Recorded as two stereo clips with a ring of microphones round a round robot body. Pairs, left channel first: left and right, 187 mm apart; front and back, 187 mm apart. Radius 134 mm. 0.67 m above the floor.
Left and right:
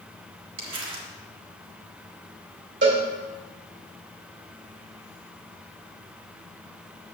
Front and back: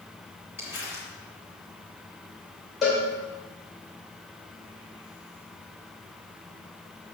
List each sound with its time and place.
0.6 s crumpling: 95° right, 1.8 m
2.8 s a cowbell: 90° right, 2.5 m